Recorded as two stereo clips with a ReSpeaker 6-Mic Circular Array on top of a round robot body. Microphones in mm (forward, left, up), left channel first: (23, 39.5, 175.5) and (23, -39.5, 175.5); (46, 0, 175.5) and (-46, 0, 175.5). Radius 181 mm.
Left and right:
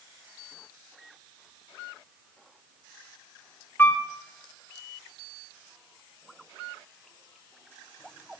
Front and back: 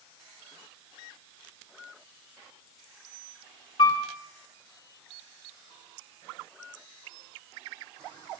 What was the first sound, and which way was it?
A piano, 25° left.